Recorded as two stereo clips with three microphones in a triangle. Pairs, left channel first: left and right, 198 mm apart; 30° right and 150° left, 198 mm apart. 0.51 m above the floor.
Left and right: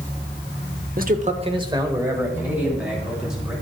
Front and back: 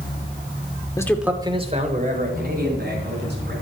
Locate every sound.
1.0 s a man speaking: 95° right, 0.9 m; by 3.5 s straight behind, 3.5 m